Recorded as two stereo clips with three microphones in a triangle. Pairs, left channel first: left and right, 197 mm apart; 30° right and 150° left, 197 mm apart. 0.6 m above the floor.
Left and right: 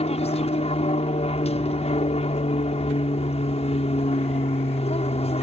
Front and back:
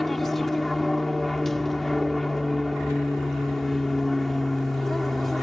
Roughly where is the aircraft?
Ahead left.